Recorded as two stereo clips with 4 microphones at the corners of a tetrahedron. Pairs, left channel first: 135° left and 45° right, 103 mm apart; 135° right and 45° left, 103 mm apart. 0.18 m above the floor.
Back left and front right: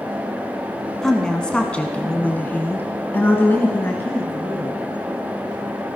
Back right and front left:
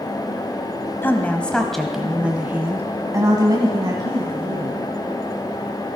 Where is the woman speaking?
150° right, 1.2 m; by 4.9 s 70° left, 2 m.